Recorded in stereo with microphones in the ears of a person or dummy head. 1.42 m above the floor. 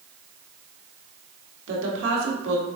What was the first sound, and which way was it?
A woman speaking, 65° right (ahead or behind).